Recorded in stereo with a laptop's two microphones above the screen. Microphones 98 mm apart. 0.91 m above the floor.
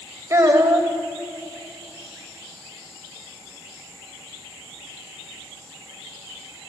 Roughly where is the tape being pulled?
I don't hear tape being pulled.